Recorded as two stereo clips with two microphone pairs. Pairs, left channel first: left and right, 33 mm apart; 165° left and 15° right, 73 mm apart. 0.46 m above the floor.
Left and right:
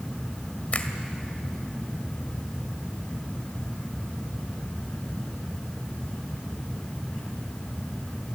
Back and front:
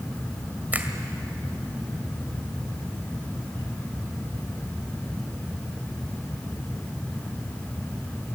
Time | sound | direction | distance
0.7 | a finger snap | 50° left | 2.0 m